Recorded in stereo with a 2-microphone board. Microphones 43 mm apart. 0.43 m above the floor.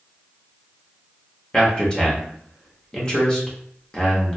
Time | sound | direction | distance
1.5 | a man speaking | 20° left (ahead or behind) | 0.7 m